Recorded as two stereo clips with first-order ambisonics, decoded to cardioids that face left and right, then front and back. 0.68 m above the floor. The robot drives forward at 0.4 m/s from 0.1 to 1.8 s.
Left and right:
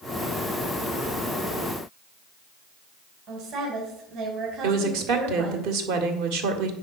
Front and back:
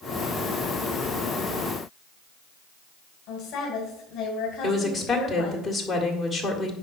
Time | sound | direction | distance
3.3 | a woman speaking | 50° right | 2.5 m
4.6 | a woman speaking | 85° right | 2.0 m